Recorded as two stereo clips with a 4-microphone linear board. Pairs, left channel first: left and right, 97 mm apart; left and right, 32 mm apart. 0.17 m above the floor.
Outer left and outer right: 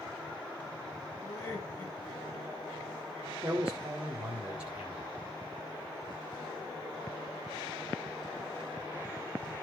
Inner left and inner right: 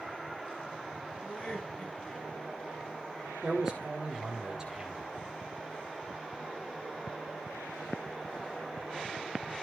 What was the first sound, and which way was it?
Laughter, 30° left (ahead or behind).